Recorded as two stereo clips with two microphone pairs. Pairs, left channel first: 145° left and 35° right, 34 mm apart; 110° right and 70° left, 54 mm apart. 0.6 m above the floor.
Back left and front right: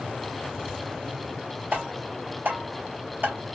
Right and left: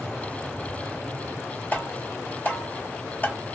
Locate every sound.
1.7 s tapping: 55° right, 2.5 m